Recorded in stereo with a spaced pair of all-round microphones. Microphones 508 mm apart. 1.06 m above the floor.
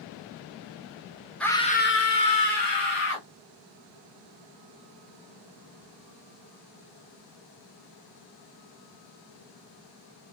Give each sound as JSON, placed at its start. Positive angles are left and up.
{"t": 1.4, "sound": "a scream", "side_deg": 0, "distance_m": 0.9}